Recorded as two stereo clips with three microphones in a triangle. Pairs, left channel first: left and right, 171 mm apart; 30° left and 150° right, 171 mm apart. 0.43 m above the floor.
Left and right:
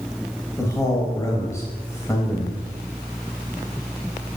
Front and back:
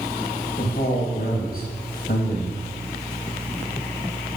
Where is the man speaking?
20° left, 2.5 m.